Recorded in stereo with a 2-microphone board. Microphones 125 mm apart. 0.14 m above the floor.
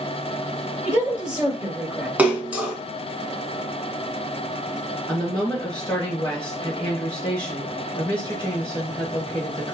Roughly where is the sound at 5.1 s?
Centre.